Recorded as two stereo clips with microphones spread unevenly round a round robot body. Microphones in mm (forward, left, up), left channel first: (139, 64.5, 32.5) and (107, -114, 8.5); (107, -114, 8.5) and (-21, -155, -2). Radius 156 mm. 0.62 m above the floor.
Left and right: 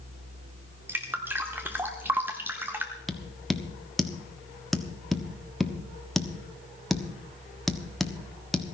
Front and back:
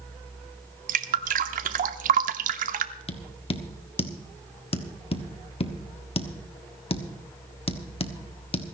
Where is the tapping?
15° right, 1.3 m.